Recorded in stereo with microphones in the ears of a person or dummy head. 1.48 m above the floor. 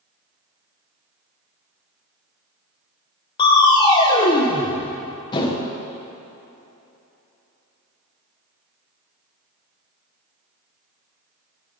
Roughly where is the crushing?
Left.